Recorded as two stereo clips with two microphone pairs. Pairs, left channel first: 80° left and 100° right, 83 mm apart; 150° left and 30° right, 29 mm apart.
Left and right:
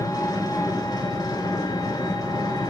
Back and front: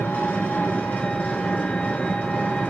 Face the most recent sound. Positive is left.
turn(degrees=115)